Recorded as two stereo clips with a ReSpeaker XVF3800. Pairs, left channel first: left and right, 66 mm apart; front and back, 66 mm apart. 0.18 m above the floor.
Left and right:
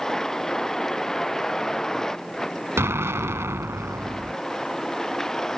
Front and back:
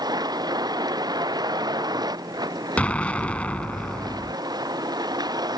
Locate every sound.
0.0 s a vehicle: 175° left
2.8 s an explosion: 60° right